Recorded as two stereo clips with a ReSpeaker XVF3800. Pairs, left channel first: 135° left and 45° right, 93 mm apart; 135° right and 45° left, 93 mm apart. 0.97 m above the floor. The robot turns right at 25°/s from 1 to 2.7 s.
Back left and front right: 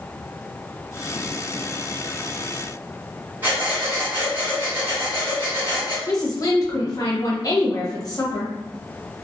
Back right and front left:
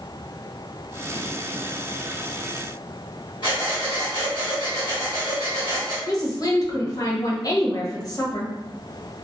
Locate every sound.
3.4 s breathing: 110° right, 1.1 m
6.1 s a woman speaking: straight behind, 0.8 m